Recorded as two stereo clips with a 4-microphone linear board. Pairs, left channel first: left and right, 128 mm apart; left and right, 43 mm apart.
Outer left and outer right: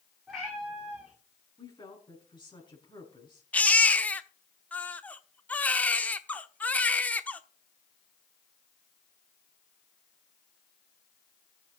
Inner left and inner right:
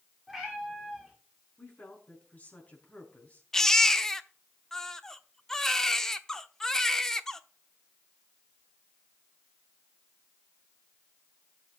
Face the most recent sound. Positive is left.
turn(degrees=10)  # may be behind; listen again after turning